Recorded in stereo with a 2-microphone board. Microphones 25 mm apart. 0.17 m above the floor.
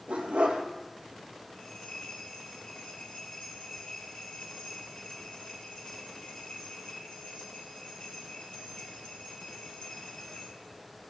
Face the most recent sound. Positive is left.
turn(degrees=55)  # may be behind; listen again after turning